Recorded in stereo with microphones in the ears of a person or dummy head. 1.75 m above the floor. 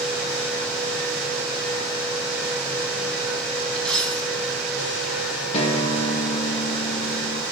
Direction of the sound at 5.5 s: 35° left (ahead or behind).